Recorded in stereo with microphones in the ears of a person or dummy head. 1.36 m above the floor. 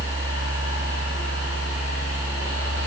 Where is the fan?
15° left (ahead or behind), 0.9 m.